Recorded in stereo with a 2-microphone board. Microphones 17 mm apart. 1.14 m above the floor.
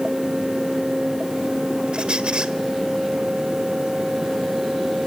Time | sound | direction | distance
1.9 | a squeak | 60° right (ahead or behind) | 1.5 m